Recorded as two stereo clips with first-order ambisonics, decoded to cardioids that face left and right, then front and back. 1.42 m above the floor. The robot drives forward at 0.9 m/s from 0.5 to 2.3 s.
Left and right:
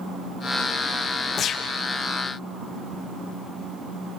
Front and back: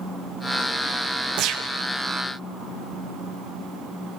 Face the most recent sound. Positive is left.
turn(degrees=160)